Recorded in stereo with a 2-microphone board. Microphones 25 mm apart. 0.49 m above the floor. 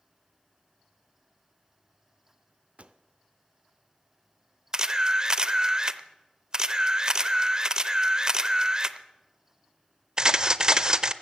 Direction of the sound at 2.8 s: 60° right (ahead or behind).